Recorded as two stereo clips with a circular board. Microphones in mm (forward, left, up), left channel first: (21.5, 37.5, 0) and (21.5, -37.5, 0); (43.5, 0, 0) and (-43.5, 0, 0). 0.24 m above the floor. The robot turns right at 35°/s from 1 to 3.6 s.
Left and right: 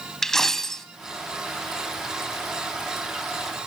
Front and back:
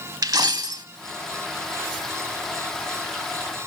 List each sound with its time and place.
0.2 s a dropped coin: 170° left, 0.6 m